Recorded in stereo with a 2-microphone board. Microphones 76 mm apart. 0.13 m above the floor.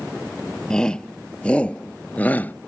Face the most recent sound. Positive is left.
turn(degrees=25)  # may be behind; listen again after turning